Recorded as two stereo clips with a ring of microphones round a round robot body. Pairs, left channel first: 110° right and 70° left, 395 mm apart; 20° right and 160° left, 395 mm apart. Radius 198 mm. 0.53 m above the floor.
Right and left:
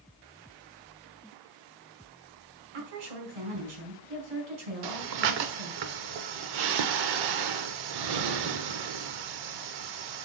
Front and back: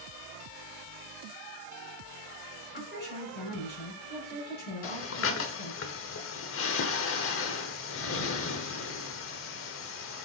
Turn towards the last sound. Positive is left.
turn(degrees=35)